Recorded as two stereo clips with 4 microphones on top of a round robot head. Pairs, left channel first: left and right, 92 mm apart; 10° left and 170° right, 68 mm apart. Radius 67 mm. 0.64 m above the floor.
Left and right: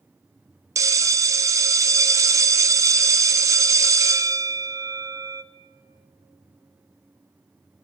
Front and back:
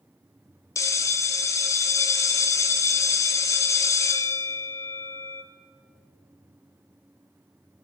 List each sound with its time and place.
0.8 s a bell: 35° right, 0.6 m